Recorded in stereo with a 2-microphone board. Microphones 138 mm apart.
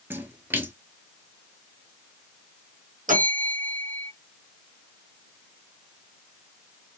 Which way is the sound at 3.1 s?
75° right (ahead or behind).